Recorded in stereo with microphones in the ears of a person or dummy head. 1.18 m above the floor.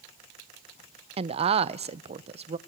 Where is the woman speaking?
30° right (ahead or behind), 0.6 m.